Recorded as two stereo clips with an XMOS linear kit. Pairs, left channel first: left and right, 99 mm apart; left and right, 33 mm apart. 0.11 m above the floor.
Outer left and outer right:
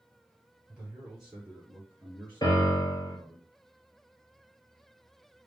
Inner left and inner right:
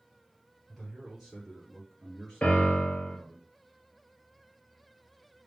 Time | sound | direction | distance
0.7 | a man speaking | 5° right (ahead or behind) | 2.5 m
2.4 | a piano | 45° left (ahead or behind) | 1.5 m